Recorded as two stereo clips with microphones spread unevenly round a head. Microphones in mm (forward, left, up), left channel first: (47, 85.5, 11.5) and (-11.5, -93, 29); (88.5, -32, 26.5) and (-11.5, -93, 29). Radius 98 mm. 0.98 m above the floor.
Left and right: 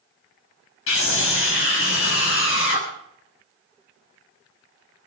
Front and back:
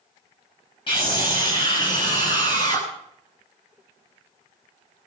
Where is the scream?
95° left, 6.5 m; by 2.9 s 100° left, 8.5 m.